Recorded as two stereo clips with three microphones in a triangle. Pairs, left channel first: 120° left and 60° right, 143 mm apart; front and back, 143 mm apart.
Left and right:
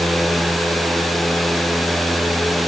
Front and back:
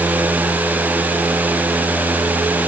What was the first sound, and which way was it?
Only background noise.